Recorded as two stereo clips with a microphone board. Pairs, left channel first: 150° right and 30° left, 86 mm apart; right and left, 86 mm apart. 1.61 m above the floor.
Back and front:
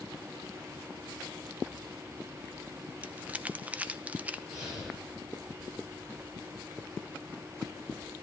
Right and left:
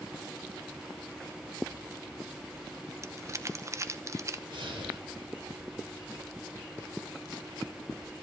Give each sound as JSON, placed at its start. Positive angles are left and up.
{"t": 3.0, "sound": "crumpling", "azimuth_deg": 90, "distance_m": 0.7}
{"t": 4.5, "sound": "breathing", "azimuth_deg": 110, "distance_m": 9.5}